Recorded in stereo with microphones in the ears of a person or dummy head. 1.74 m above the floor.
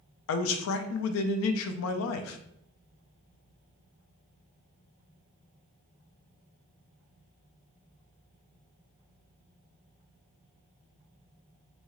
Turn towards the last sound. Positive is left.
turn(degrees=75)  # may be behind; listen again after turning